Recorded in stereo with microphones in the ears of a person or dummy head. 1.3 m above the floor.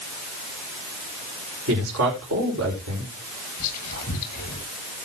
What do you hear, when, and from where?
1.7 s a man speaking: 80° right, 5.5 m
3.6 s whispering: 45° left (ahead or behind), 8.5 m